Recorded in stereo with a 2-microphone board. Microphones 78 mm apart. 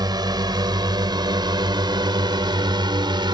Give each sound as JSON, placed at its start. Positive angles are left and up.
{"t": 0.0, "sound": "a drone", "side_deg": -60}